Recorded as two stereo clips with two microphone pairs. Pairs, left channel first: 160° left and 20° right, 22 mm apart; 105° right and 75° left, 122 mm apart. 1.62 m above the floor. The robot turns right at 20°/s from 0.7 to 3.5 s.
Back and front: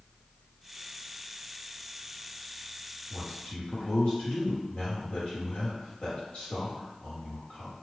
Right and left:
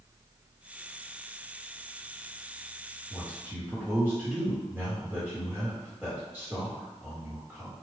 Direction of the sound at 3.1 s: 140° left.